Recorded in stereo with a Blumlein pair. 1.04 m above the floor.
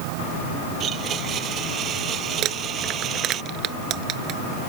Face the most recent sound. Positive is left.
turn(degrees=-35)